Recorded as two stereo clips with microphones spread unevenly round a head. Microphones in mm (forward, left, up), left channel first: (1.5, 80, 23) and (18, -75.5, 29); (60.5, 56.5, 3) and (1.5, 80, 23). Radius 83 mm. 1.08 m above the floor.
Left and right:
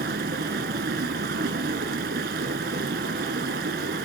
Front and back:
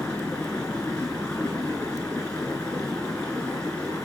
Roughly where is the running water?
Behind right.